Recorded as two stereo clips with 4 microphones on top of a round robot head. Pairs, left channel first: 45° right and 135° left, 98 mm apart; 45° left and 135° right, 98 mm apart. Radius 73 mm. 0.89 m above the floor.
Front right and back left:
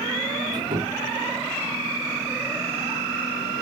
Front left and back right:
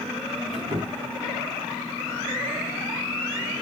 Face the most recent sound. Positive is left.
turn(degrees=-175)